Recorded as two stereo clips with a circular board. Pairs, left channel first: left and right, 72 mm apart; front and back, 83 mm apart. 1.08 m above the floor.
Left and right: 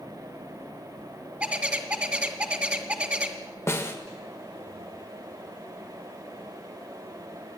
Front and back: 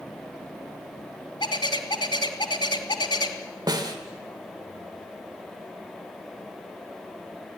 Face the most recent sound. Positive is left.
turn(degrees=140)